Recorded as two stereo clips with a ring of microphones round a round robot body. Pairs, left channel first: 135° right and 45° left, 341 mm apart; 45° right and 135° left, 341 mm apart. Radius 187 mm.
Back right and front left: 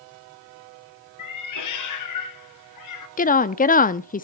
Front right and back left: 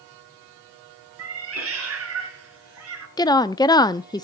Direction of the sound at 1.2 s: 175° right.